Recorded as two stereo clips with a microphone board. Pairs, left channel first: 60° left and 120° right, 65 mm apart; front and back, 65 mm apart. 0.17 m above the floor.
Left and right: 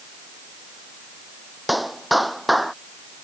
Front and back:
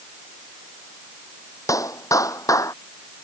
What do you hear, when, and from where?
1.7 s a clap: 30° right